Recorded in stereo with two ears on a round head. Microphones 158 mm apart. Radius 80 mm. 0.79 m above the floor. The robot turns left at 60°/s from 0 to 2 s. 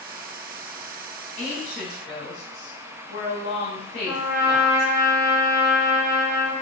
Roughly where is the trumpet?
Centre.